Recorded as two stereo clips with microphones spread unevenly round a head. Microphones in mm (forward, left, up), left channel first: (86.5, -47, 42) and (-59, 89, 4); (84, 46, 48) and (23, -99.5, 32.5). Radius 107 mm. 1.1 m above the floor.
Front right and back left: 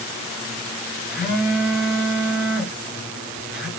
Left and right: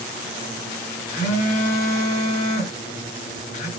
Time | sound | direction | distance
1.1 | a phone buzzing | 45° left | 0.8 m